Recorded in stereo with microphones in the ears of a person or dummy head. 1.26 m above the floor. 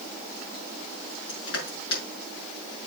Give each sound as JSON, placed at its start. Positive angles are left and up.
{"t": 1.3, "sound": "crushing", "side_deg": 60, "distance_m": 6.0}